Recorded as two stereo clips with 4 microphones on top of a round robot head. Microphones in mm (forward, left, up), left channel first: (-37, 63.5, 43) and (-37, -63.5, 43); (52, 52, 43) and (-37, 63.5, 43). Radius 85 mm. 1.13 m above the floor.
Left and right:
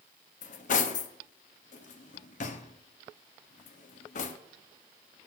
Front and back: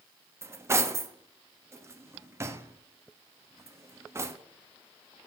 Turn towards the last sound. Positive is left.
turn(degrees=110)